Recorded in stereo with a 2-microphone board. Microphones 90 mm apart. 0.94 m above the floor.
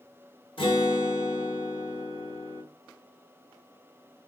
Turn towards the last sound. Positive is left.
turn(degrees=85)